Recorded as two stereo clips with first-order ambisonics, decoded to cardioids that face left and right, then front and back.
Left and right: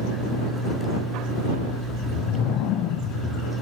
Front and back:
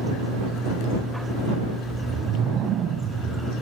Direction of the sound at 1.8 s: 125° left.